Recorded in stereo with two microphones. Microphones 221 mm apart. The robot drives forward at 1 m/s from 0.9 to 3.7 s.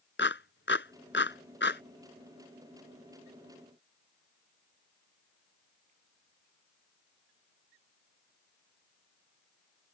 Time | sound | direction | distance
0.2 | a clap | 60° left (ahead or behind) | ?